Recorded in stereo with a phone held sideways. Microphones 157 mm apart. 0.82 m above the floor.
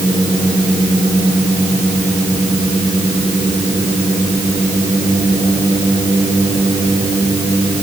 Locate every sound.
Only background noise.